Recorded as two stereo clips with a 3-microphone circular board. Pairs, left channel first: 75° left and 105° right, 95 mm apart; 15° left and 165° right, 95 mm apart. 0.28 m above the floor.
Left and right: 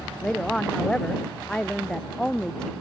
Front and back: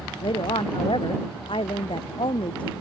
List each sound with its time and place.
0.2 s a woman speaking: 5° right